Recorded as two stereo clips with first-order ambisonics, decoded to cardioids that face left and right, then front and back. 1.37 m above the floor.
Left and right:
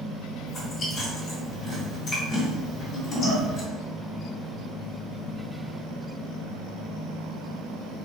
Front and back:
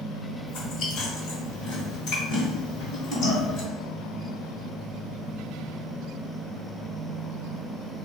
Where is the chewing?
30° left, 1.6 m.